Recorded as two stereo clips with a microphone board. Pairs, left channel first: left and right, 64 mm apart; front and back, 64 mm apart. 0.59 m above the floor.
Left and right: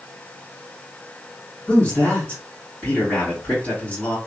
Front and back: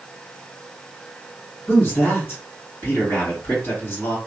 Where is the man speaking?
35° left, 1.9 m.